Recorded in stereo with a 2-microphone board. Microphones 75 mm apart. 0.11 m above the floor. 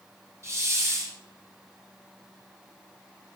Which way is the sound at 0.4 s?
40° right (ahead or behind).